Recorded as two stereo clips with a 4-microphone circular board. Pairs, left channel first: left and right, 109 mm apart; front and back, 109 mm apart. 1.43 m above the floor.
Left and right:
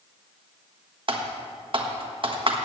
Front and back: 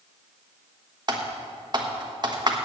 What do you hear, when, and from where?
1.1 s typing on a keyboard: 130° right, 1.3 m